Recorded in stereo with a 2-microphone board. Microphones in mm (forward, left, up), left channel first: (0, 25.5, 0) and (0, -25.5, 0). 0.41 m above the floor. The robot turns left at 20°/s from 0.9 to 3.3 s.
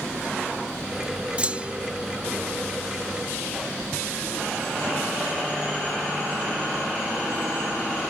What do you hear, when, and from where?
1.4 s a clunk: 25° right (ahead or behind)